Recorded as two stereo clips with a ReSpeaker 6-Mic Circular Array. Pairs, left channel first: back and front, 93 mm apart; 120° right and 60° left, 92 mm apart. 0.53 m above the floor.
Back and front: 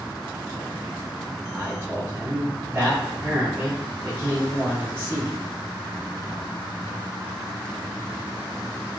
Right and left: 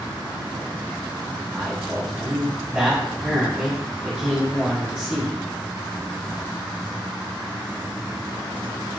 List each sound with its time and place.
1.6 s a man speaking: straight ahead, 1.2 m